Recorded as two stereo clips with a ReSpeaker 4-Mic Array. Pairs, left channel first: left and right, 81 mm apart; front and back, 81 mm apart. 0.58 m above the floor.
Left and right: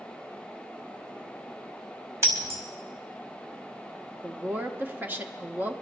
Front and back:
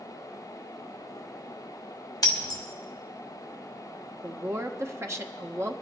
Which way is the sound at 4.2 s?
145° right.